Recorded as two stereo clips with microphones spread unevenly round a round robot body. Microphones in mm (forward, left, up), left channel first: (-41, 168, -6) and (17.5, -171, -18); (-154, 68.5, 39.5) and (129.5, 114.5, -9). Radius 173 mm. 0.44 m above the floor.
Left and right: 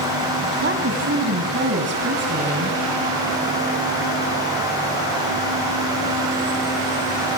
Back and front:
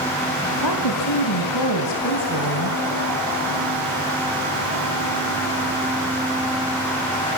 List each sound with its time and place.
0.6 s a woman speaking: 140° right, 3 m